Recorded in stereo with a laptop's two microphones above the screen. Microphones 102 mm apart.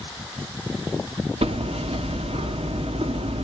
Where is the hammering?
75° right (ahead or behind), 1.5 m.